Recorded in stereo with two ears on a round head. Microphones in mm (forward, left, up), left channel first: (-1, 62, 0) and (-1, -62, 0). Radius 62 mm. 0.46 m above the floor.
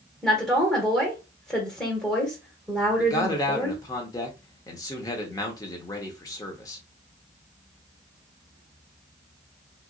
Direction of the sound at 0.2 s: Centre (ahead or behind).